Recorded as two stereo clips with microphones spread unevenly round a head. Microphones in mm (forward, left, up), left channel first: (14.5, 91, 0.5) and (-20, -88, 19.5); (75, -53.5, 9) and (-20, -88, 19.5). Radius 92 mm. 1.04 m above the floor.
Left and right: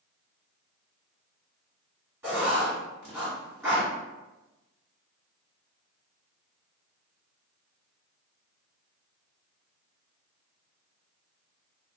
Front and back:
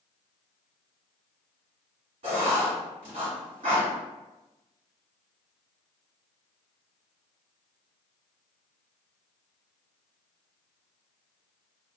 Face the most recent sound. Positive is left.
turn(degrees=-175)